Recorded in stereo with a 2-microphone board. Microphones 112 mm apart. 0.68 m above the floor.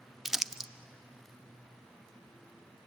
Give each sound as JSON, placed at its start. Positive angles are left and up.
{"t": 0.2, "sound": "crumpling", "side_deg": -5, "distance_m": 0.6}